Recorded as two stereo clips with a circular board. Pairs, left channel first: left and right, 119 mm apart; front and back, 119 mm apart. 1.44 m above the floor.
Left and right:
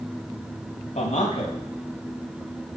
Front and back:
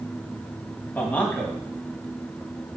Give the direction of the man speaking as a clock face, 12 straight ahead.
9 o'clock.